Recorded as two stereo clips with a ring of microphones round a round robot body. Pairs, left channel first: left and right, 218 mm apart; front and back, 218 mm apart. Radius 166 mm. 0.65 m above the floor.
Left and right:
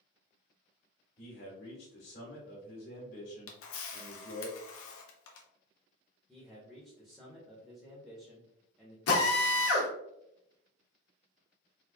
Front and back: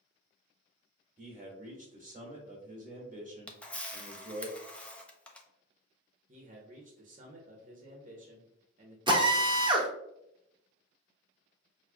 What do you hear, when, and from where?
1.2 s a man speaking: 130° left, 1.3 m
3.5 s a camera shutter: 85° left, 0.7 m
6.3 s a man speaking: straight behind, 0.9 m
9.1 s a drill: 110° left, 1.0 m